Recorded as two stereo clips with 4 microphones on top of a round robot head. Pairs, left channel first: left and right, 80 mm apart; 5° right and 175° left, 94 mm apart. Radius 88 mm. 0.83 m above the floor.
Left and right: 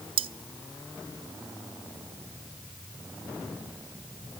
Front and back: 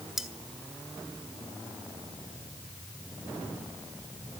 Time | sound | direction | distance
0.2 | cutlery clinking | 100° right | 0.7 m